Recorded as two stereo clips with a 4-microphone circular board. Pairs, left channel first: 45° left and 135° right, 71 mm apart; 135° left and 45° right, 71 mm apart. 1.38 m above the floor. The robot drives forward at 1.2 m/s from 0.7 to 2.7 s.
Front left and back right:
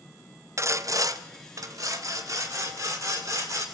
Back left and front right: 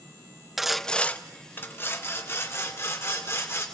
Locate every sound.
0.6 s sawing: 130° right, 0.6 m; by 3.6 s 175° right, 2.5 m